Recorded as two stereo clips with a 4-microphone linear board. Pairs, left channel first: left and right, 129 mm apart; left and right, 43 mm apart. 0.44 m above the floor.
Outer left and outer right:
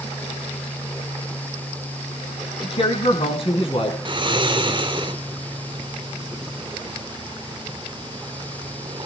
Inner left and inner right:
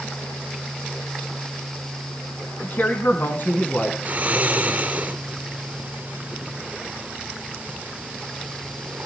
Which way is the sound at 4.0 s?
35° right (ahead or behind).